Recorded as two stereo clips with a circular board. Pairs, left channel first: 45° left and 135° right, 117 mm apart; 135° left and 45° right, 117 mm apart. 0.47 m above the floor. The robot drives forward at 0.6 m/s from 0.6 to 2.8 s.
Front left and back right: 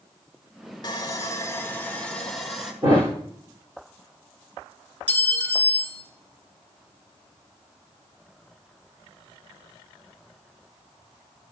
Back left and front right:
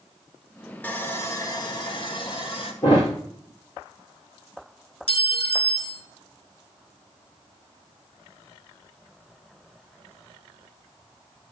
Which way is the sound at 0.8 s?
70° left.